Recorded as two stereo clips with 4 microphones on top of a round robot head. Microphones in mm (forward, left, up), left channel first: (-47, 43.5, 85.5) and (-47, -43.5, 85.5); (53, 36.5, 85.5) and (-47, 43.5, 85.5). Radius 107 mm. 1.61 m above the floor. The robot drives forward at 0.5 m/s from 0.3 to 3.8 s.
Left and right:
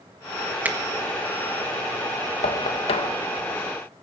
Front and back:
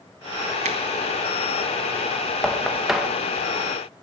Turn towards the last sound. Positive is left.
turn(degrees=110)